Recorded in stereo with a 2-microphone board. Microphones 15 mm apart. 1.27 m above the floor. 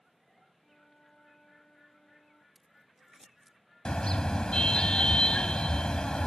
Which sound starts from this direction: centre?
Scissors, at 2.5 s.